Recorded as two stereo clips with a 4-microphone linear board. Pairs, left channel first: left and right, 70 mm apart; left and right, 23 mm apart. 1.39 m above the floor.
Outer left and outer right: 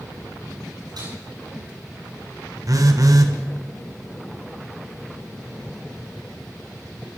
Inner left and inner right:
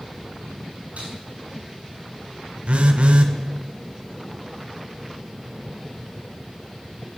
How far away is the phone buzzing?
About 1.2 m.